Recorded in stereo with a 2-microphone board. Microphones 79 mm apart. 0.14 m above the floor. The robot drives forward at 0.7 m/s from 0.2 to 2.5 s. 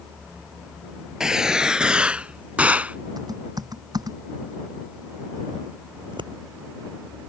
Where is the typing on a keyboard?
55° right (ahead or behind).